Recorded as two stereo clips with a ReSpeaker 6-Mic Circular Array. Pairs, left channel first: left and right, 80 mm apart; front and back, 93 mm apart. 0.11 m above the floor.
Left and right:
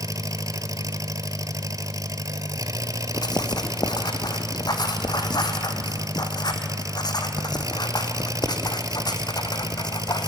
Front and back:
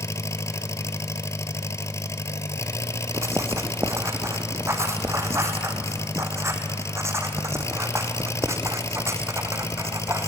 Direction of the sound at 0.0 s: 50° right.